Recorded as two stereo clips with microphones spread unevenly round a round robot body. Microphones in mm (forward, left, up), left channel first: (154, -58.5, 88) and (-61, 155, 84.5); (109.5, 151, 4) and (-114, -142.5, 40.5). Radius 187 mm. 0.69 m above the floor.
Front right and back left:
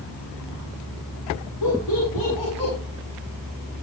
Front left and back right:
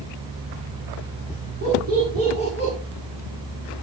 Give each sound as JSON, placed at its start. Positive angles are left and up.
{"t": 1.6, "sound": "laughter", "azimuth_deg": -60, "distance_m": 7.5}